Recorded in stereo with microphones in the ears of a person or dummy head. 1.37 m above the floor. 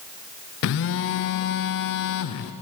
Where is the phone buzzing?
65° left (ahead or behind), 0.6 m.